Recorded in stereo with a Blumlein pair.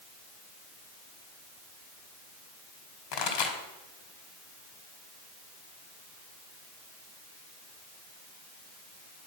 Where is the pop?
40° left, 2.0 m.